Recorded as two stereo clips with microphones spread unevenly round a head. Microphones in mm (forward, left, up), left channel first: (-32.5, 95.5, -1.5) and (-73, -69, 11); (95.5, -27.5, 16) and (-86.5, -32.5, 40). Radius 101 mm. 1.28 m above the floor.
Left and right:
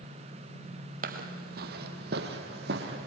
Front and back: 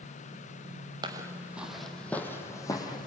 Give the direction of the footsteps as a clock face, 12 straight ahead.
4 o'clock.